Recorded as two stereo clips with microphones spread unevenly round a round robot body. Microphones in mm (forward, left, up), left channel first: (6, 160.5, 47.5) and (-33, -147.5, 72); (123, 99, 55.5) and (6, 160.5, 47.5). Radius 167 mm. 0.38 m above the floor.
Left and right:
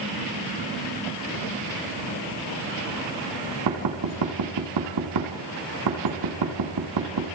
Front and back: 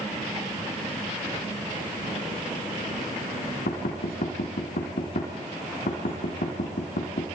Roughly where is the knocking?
Ahead right.